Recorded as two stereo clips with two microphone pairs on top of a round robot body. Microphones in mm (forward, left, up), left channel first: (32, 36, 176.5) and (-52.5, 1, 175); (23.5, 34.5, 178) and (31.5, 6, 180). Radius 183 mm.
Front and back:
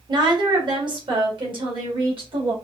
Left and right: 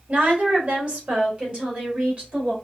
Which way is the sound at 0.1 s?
120° right.